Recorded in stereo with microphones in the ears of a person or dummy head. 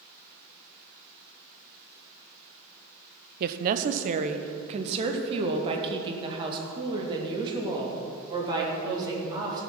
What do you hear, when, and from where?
3.4 s a woman speaking: 55° right (ahead or behind), 0.7 m; by 9.6 s 25° right (ahead or behind), 3.5 m